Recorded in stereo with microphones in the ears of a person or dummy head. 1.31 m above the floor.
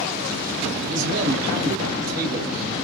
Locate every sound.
0.9 s a man speaking: 55° right (ahead or behind), 1.8 m